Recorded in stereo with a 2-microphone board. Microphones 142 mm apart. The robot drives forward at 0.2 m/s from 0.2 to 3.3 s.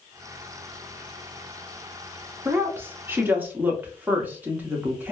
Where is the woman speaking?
15° right (ahead or behind), 0.6 m.